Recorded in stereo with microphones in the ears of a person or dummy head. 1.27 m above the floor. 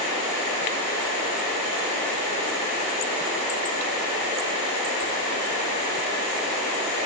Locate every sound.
Only background noise.